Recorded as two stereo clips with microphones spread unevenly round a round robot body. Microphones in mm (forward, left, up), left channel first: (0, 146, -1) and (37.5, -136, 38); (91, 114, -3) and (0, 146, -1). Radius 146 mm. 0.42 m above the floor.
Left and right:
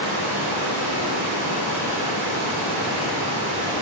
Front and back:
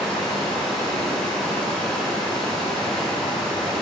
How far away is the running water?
About 1.8 m.